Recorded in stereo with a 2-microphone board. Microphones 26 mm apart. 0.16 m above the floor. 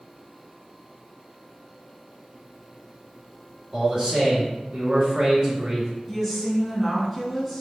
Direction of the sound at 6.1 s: 5° left (ahead or behind).